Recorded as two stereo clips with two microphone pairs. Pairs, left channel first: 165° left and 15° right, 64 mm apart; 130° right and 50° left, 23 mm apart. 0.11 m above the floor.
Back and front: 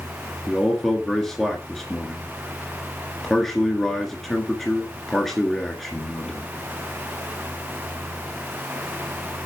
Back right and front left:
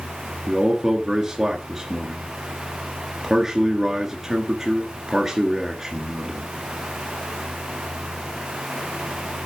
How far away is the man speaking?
About 1.8 m.